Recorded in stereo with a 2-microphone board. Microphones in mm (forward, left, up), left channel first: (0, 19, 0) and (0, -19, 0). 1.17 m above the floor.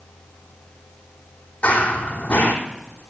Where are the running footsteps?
40° left (ahead or behind), 3 m.